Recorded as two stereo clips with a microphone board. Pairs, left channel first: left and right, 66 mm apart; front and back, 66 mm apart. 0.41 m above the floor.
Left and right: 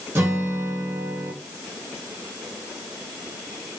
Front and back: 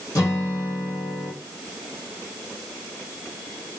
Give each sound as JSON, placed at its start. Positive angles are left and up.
{"t": 0.1, "sound": "a guitar", "azimuth_deg": -35, "distance_m": 2.5}